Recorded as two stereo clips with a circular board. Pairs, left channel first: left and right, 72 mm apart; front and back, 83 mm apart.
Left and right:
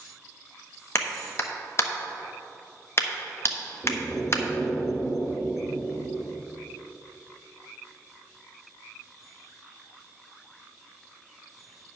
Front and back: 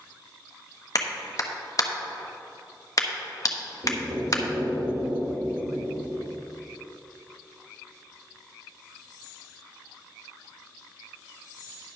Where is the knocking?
175° right, 2.5 m.